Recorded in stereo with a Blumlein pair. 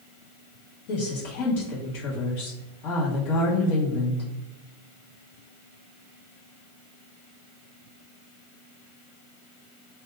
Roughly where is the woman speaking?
Ahead left.